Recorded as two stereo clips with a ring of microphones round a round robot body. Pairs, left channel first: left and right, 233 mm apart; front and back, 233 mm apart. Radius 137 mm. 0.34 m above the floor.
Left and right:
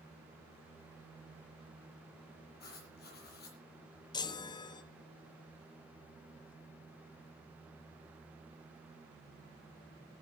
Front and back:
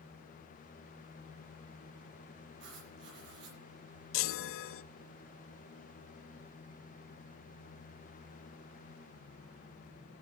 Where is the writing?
135° left, 7.5 m.